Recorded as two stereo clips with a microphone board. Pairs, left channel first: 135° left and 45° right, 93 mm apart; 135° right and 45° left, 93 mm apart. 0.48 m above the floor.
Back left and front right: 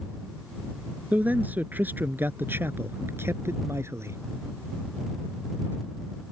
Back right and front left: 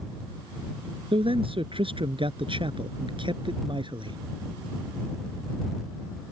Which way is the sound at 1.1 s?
30° left.